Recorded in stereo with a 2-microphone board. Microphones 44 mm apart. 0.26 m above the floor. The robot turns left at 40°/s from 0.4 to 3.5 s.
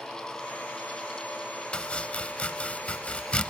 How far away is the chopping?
About 0.6 m.